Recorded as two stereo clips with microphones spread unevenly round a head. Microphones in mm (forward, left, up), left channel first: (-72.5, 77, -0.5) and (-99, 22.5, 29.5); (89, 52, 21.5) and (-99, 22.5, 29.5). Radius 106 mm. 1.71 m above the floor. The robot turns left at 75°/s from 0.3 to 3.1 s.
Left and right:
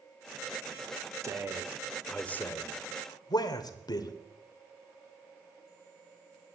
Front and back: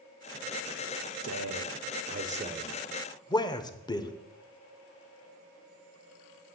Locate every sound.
1.2 s a man speaking: 140° right, 1.1 m; by 4.1 s 80° left, 1.1 m